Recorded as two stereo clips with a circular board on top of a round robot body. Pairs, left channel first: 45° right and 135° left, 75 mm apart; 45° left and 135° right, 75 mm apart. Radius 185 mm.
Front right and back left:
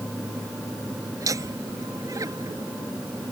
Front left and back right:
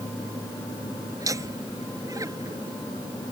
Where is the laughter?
Straight behind.